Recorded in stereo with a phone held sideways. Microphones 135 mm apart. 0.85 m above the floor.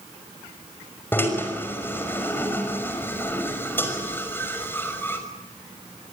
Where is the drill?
15° left (ahead or behind), 5.5 m.